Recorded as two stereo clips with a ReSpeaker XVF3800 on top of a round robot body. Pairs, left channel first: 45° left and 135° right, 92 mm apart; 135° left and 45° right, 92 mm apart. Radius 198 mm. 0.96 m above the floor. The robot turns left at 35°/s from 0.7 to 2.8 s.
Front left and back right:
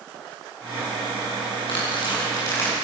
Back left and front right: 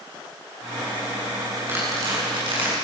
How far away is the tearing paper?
About 8 m.